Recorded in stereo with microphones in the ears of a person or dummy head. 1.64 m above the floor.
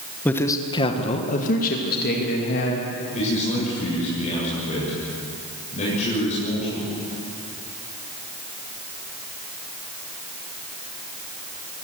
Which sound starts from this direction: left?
A man speaking, at 3.1 s.